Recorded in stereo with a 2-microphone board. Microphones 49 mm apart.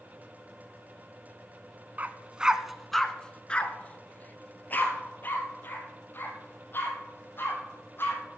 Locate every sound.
2.0 s a dog barking: 35° right (ahead or behind), 0.7 m; by 8.2 s 50° left (ahead or behind), 4 m